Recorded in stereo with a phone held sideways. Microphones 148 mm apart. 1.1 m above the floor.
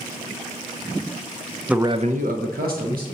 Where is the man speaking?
5° right (ahead or behind), 0.5 m; by 3.0 s 80° right, 1.4 m.